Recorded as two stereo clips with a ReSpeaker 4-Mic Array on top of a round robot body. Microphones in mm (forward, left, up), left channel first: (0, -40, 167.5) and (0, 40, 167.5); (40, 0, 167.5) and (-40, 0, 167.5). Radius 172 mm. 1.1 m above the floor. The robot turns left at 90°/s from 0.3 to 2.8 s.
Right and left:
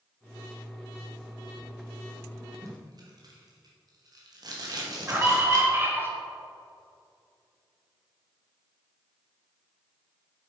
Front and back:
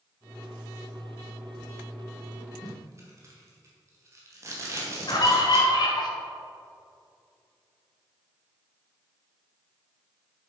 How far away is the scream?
About 2.5 m.